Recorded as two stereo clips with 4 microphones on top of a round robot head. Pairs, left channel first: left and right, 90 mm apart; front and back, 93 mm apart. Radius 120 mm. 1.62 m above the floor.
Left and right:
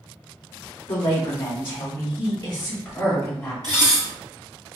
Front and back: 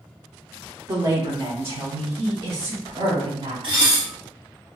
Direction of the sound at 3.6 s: 150° right.